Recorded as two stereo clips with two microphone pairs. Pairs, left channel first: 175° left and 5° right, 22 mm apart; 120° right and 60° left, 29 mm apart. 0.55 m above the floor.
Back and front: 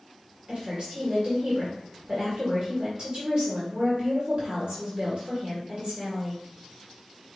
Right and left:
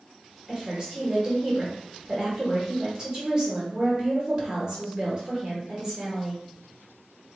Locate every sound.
0.5 s a woman speaking: straight ahead, 1.7 m